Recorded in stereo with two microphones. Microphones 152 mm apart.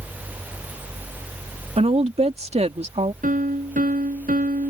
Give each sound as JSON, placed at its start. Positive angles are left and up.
{"t": 1.8, "sound": "a woman speaking", "side_deg": -45}
{"t": 3.2, "sound": "a piano", "side_deg": -65}